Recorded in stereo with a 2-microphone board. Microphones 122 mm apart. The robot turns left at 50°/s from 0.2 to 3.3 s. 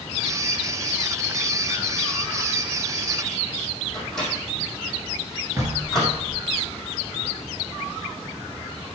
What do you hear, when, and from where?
3.9 s a microwave: 5° left (ahead or behind), 5 m
5.6 s knocking: 25° right (ahead or behind), 3 m